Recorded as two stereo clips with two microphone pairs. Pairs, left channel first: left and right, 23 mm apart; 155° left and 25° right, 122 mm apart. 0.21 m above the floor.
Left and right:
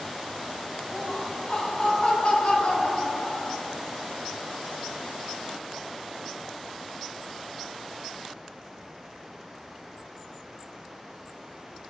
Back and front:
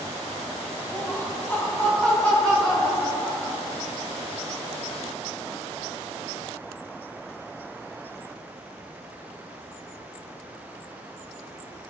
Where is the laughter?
105° left, 1.5 m; by 3.6 s 70° left, 2.5 m.